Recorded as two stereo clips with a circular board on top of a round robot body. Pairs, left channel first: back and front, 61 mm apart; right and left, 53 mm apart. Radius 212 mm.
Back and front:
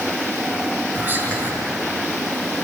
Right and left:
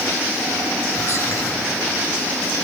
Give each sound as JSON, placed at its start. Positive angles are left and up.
{"t": 0.9, "sound": "whispering", "azimuth_deg": -60, "distance_m": 7.0}